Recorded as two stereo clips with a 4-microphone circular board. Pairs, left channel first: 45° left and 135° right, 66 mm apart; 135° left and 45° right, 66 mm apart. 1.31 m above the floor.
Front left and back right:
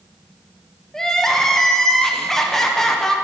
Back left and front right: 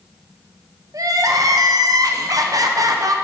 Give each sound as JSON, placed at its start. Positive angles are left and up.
{"t": 0.9, "sound": "crying", "azimuth_deg": -40, "distance_m": 0.8}